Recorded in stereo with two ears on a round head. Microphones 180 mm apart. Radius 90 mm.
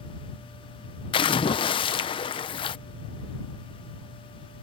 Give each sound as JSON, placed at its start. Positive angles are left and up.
{"t": 1.1, "sound": "a splash", "side_deg": 25}